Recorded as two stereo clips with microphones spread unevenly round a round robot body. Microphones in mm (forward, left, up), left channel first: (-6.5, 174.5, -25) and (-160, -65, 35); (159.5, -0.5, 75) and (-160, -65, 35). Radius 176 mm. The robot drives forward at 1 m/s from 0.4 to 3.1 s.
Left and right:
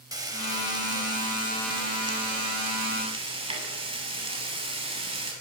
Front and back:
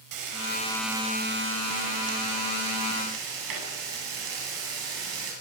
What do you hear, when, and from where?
0.1 s frying: 160° left, 6 m; by 5.3 s 165° left, 8.5 m